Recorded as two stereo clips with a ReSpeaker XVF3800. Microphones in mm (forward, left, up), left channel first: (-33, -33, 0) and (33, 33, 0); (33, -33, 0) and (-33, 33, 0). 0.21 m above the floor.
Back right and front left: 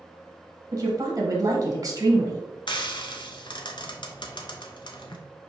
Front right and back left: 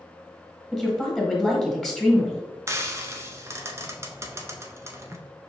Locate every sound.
0.7 s a woman speaking: 35° left, 1.3 m
2.7 s frying: 165° right, 0.6 m